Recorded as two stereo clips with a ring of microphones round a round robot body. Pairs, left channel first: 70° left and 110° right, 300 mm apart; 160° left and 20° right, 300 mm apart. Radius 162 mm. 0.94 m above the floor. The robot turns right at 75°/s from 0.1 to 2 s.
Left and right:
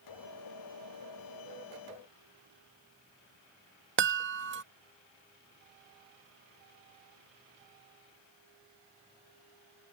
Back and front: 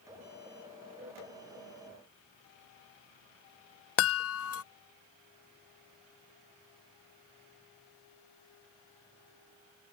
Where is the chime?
160° right.